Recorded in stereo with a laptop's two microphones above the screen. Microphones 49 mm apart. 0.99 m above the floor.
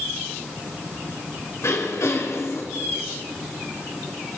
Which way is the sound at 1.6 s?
75° left (ahead or behind).